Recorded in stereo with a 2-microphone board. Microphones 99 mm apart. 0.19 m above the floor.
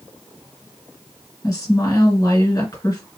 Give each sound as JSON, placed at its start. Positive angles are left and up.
{"t": 1.4, "sound": "a woman speaking", "side_deg": 35, "distance_m": 2.5}